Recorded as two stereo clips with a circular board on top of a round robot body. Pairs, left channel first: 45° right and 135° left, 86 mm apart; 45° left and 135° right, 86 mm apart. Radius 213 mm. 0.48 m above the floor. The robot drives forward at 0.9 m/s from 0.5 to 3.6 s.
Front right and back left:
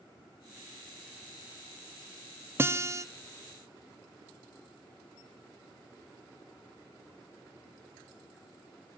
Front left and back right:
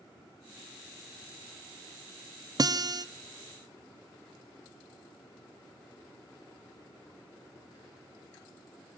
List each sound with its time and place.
2.6 s a guitar: 165° right, 0.8 m; by 3.0 s 170° right, 1.2 m